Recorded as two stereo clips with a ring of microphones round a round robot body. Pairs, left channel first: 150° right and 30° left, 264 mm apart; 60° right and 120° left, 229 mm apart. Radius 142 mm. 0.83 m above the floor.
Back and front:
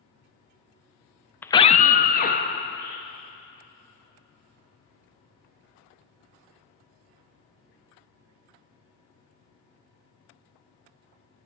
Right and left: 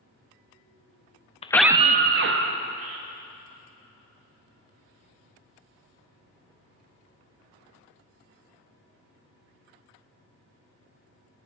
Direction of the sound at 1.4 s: 75° right.